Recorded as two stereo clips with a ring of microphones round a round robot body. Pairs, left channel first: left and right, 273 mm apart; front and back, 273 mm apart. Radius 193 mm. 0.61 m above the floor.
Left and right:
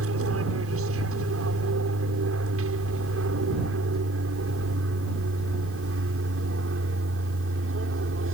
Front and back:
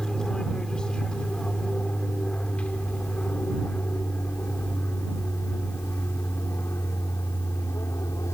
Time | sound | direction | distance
0.0 | an aircraft | 90° right | ?